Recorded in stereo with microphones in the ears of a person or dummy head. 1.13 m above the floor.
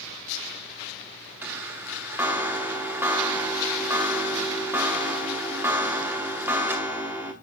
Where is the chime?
10° right (ahead or behind), 0.9 m.